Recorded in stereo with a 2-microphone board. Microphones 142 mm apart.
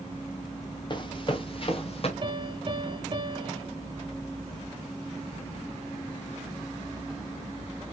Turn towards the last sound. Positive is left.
turn(degrees=-40)  # may be behind; listen again after turning